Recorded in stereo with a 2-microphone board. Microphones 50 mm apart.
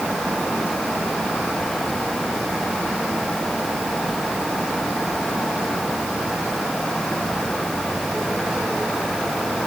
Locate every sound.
Only background noise.